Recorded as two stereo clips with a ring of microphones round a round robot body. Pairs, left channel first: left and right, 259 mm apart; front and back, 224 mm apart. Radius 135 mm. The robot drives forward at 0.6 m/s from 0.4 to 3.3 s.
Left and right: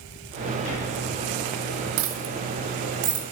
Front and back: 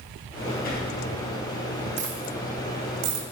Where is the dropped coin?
120° right, 0.8 m; by 3.2 s 150° right, 1.3 m.